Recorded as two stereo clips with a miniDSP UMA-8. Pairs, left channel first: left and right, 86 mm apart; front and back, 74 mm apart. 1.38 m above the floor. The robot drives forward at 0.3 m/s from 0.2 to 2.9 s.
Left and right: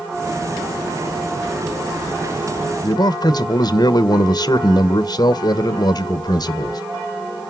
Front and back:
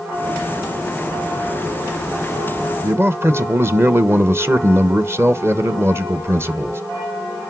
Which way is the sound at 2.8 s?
125° left.